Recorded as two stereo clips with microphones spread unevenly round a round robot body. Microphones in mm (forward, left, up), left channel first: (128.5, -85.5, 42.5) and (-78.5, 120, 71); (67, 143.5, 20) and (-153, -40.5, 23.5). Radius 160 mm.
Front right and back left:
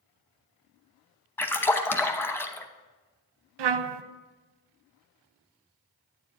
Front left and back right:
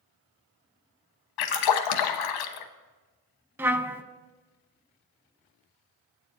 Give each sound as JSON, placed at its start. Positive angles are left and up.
{"t": 1.4, "sound": "a splash", "azimuth_deg": 40, "distance_m": 0.9}
{"t": 3.6, "sound": "a trumpet", "azimuth_deg": 135, "distance_m": 0.6}